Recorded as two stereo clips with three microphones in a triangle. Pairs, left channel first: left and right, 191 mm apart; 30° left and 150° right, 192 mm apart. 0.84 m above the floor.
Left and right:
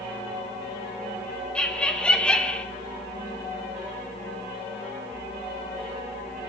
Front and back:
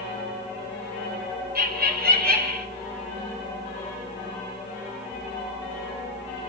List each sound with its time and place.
1.6 s laughter: 175° left, 2.5 m